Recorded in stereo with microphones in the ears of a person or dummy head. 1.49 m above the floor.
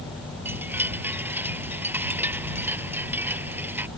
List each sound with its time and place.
0.5 s a chime: 10° right (ahead or behind)